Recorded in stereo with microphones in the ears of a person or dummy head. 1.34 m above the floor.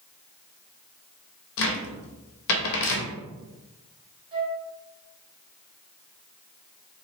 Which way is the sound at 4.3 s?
30° right (ahead or behind).